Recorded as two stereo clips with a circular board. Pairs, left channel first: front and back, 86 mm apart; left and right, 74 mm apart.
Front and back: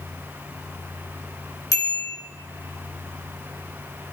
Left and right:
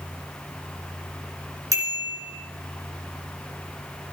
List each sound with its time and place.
1.7 s a bicycle bell: 45° right, 4 m